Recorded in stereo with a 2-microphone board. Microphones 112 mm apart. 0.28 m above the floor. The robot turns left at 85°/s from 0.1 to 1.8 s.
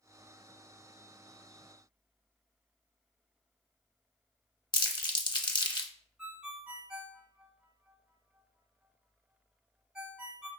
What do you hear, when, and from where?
4.7 s crumpling: 40° left (ahead or behind), 0.6 m
6.2 s a ringtone: 10° right (ahead or behind), 1.0 m